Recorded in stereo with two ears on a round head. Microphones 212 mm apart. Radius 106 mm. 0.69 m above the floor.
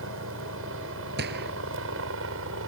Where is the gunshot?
45° right (ahead or behind).